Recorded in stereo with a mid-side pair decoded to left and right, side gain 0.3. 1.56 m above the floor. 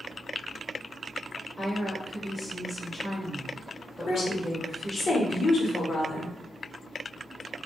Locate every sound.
1.6 s a woman speaking: 20° left, 1.8 m
4.1 s a woman speaking: 65° left, 1.2 m